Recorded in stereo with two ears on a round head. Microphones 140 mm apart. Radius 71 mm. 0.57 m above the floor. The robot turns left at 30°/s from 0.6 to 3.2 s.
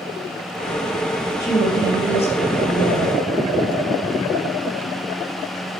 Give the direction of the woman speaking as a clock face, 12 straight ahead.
7 o'clock.